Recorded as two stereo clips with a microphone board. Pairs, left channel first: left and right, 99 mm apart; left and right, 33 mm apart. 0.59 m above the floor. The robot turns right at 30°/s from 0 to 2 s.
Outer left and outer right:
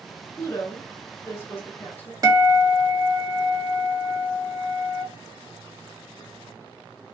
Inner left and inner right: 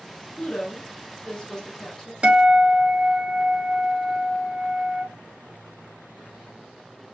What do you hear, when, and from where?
0.4 s a woman speaking: 25° left (ahead or behind), 0.8 m; by 2.1 s 15° left (ahead or behind), 0.8 m
2.2 s a guitar: 35° right (ahead or behind), 0.8 m